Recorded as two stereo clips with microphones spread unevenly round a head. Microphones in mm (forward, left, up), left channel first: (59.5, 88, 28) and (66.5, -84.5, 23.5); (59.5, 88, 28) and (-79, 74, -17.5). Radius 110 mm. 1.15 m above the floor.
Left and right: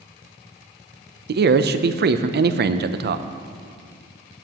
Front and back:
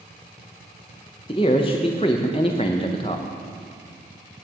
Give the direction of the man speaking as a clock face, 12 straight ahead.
2 o'clock.